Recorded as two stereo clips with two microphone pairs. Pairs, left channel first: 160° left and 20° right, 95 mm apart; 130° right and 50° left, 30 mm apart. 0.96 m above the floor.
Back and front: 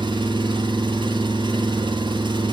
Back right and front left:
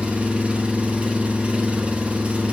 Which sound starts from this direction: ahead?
An engine running, at 0.0 s.